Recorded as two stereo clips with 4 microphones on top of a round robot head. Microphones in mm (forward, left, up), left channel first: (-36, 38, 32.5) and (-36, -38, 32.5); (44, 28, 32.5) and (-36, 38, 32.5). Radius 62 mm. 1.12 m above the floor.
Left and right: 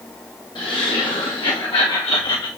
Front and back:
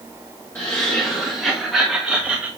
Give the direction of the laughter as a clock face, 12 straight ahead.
10 o'clock.